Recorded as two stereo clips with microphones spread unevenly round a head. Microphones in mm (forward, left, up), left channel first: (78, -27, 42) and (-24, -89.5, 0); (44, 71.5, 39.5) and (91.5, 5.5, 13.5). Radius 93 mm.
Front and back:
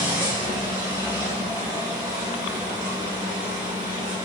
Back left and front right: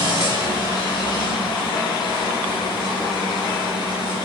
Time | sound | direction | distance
0.0 | a machine running | 125° left | 1.3 m